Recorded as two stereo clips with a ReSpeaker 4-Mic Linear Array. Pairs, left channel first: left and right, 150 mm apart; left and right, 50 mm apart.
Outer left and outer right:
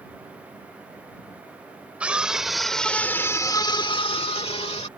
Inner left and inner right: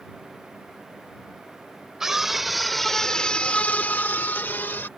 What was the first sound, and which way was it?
A scream, 10° right (ahead or behind).